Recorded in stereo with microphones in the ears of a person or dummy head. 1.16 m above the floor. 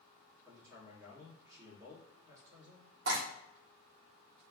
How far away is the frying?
About 1.3 m.